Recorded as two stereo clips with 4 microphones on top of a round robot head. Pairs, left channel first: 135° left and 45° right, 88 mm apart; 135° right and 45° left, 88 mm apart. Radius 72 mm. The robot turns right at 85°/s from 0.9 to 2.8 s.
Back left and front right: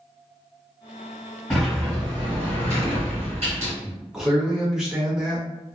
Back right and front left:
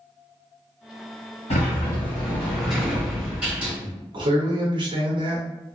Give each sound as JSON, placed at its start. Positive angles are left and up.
{"t": 1.5, "sound": "a sliding door", "azimuth_deg": -150, "distance_m": 1.6}
{"t": 3.8, "sound": "a man speaking", "azimuth_deg": 40, "distance_m": 0.8}